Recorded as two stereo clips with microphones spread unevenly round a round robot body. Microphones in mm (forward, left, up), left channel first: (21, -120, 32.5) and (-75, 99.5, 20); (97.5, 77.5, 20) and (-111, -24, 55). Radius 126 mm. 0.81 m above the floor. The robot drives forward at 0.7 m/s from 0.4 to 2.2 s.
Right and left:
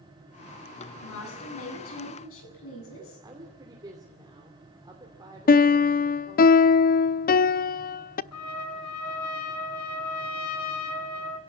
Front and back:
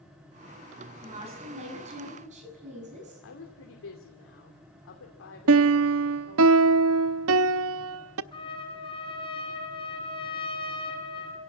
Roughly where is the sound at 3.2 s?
Ahead left.